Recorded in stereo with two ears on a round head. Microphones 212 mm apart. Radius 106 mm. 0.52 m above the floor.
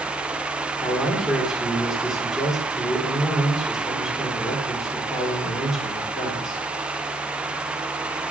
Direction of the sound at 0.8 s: Centre (ahead or behind).